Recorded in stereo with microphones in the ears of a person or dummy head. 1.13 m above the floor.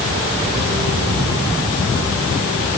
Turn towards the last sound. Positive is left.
No sound to turn to.